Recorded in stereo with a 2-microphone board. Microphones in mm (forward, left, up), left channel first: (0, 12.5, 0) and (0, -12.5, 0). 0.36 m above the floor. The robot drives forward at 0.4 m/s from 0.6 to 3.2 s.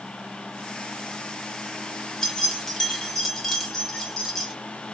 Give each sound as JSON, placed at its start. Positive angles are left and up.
{"t": 2.2, "sound": "keys jangling", "side_deg": 20, "distance_m": 0.8}